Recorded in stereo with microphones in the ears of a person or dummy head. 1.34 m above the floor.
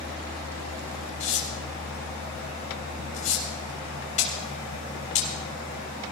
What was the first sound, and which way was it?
Tearing paper, 45° left (ahead or behind).